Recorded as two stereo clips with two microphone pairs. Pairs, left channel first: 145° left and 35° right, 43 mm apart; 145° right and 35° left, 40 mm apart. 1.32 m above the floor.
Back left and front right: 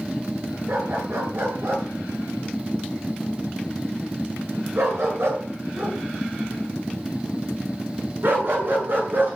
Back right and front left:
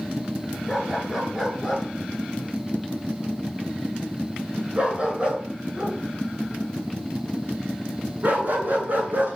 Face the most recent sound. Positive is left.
turn(degrees=0)